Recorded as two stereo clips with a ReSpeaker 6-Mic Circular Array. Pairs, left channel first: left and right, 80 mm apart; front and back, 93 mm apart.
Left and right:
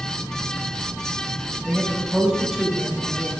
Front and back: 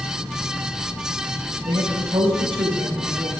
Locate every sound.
1.6 s a man speaking: 175° right, 6.5 m